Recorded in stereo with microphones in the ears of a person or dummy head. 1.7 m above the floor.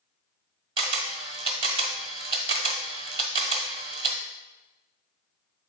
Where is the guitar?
I don't hear a guitar.